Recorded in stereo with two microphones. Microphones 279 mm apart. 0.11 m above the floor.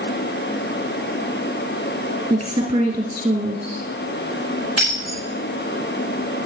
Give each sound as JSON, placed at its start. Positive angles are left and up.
{"t": 2.3, "sound": "a woman speaking", "side_deg": -15, "distance_m": 1.9}
{"t": 4.8, "sound": "breaking glass", "side_deg": 60, "distance_m": 5.0}